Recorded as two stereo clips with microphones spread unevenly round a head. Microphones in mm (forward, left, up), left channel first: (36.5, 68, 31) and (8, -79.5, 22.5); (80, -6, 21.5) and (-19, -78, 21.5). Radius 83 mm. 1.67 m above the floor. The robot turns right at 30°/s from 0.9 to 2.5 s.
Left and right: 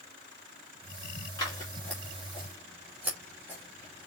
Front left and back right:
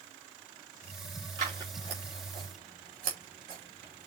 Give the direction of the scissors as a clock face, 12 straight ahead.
7 o'clock.